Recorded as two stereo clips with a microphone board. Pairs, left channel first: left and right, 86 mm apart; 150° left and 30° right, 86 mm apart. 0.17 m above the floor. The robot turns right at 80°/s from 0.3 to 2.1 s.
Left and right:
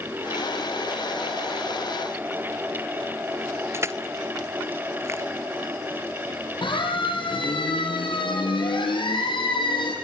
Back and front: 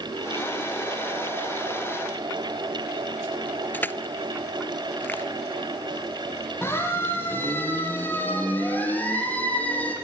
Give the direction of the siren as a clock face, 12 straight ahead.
9 o'clock.